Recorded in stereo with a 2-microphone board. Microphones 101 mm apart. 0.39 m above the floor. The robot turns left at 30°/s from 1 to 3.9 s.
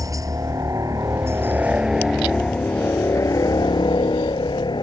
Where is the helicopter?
145° right; by 4.8 s 130° left.